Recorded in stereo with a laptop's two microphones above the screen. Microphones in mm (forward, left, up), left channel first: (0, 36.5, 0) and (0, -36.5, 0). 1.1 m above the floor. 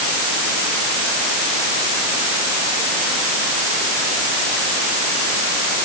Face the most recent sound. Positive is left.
No sound to turn to.